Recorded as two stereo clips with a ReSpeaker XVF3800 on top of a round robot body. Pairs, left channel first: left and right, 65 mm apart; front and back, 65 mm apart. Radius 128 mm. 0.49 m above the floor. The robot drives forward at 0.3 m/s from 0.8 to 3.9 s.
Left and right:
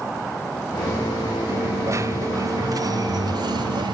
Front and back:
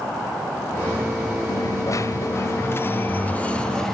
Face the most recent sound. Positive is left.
turn(degrees=-85)